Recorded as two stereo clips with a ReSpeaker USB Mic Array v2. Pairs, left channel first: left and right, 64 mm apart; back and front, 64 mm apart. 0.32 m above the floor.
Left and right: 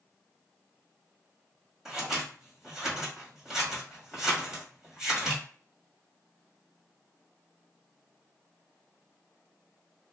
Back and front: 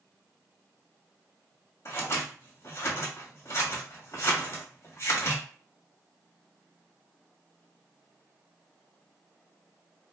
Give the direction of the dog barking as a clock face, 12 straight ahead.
I don't hear a dog barking.